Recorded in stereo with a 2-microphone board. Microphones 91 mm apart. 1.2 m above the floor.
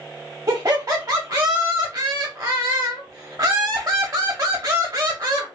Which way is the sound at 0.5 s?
40° right (ahead or behind).